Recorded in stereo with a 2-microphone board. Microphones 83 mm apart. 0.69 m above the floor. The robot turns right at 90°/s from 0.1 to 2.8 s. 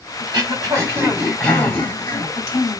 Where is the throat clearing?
60° right (ahead or behind), 2.5 m; by 2.8 s 40° left (ahead or behind), 2.5 m.